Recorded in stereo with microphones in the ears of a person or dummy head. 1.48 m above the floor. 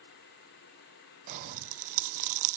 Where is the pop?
40° right (ahead or behind), 0.9 m.